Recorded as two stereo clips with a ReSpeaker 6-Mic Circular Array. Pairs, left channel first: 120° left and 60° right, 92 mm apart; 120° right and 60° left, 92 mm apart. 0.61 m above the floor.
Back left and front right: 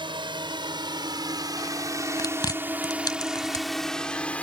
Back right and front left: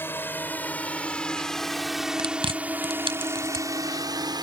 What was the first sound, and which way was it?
A drone, 60° right.